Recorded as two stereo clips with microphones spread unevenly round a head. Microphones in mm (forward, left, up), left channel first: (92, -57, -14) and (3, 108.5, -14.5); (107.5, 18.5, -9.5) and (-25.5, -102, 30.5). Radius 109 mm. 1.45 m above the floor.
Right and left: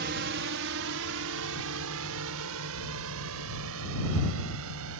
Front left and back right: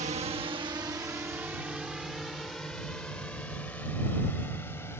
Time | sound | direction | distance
0.0 | a drone | 160° left | ?